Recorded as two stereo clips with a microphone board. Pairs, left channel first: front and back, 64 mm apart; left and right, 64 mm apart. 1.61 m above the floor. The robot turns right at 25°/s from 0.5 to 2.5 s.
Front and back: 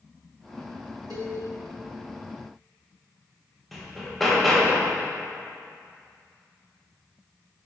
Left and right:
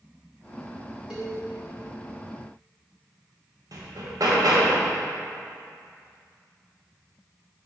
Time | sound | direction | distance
1.1 | a cowbell | 165° right | 1.5 m
3.7 | hammering | 85° right | 1.1 m